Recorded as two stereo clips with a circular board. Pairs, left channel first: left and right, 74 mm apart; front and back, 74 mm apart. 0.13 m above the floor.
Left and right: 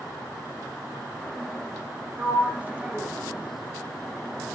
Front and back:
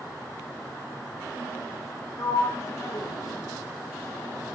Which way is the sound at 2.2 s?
25° right.